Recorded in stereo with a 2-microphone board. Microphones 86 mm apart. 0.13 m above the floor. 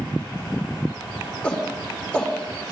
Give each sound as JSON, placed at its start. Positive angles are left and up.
{"t": 1.4, "sound": "a shout", "side_deg": 15, "distance_m": 7.5}